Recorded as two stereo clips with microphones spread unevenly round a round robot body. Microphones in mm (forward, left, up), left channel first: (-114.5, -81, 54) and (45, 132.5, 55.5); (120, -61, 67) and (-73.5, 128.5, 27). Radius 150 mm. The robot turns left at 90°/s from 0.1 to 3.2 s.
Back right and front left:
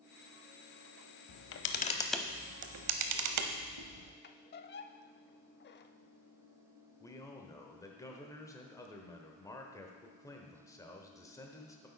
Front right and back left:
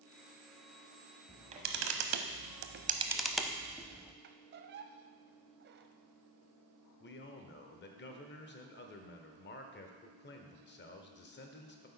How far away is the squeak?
About 0.6 m.